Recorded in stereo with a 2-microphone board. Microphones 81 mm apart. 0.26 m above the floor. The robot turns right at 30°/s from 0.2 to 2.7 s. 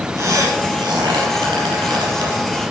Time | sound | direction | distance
0.2 | a squeak | 40° right (ahead or behind) | 5 m